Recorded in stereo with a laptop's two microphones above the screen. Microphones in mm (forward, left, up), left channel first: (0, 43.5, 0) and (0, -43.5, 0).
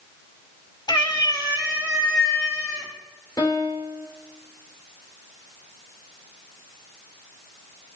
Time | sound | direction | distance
0.9 | a cat meowing | 55° left (ahead or behind) | 1.1 m
3.4 | a piano | 40° left (ahead or behind) | 3 m